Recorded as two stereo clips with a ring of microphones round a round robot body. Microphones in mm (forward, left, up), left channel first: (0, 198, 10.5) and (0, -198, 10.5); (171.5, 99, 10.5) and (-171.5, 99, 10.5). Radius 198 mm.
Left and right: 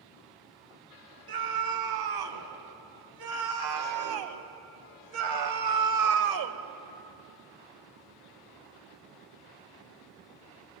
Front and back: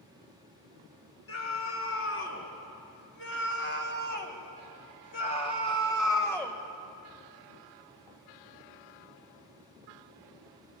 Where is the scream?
55° right, 4 m; by 6.6 s 85° right, 1.5 m.